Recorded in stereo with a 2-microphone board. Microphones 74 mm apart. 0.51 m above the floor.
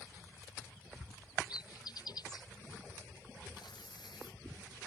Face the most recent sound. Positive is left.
turn(degrees=80)